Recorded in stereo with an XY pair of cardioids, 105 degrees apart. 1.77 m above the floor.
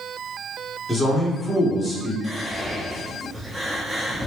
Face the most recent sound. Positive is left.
turn(degrees=-10)